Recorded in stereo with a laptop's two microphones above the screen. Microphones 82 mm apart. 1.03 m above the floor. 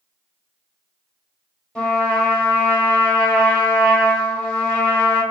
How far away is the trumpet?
About 0.9 m.